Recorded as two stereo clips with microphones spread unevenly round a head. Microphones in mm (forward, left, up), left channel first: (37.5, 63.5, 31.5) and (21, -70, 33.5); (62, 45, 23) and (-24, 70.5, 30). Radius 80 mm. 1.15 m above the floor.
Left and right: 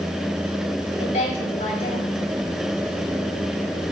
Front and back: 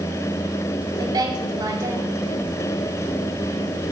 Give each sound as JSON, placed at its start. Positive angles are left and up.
{"t": 1.0, "sound": "a woman speaking", "azimuth_deg": 125, "distance_m": 4.0}